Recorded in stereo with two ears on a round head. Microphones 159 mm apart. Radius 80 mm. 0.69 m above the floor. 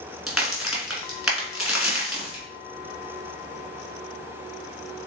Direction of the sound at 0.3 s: Centre (ahead or behind).